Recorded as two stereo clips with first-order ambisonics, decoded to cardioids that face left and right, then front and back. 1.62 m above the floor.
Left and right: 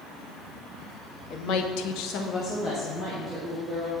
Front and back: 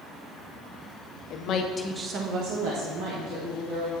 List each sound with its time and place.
1.3 s a woman speaking: 40° left, 0.9 m; by 3.9 s 175° left, 2.5 m